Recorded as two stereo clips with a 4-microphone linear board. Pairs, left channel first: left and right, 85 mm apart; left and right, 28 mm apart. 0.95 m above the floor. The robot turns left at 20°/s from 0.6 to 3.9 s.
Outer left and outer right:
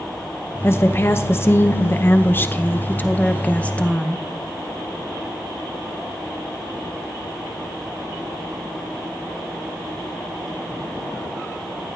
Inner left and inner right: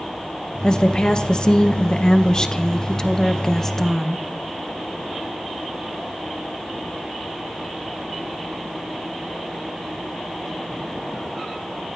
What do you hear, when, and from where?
0.6 s a woman speaking: 25° left (ahead or behind), 0.7 m; by 4.2 s 10° left (ahead or behind), 0.7 m